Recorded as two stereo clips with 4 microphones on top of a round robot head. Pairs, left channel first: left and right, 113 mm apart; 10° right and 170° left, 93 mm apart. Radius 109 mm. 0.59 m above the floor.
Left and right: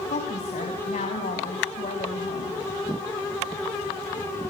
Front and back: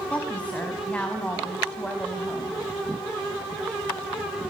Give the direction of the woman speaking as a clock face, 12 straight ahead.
10 o'clock.